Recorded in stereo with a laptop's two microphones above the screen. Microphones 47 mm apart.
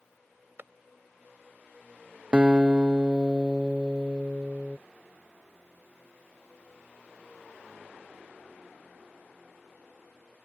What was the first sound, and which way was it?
A clap, 55° right (ahead or behind).